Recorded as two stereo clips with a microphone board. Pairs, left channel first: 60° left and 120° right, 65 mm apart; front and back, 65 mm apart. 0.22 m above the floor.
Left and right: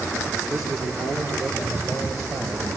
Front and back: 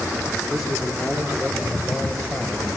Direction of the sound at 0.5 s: 95° right.